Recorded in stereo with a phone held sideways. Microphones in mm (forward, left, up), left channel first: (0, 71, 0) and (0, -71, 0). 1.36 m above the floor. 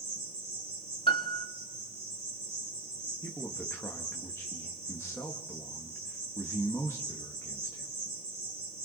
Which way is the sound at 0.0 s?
45° right (ahead or behind).